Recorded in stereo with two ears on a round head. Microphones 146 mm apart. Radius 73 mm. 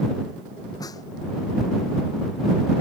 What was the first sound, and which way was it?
A snare drum, 25° left (ahead or behind).